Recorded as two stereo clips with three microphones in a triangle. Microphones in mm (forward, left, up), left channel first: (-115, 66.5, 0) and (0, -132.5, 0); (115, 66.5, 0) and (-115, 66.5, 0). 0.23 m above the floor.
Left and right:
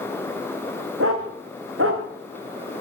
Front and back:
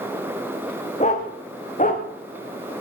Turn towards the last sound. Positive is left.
turn(degrees=-50)